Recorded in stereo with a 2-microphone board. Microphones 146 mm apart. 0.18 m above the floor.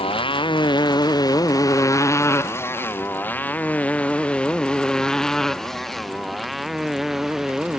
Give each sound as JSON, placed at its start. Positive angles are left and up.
{"t": 0.0, "sound": "a motorcycle", "side_deg": 40}